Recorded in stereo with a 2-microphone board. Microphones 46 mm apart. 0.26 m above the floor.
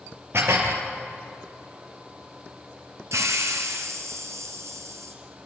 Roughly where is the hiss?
Right.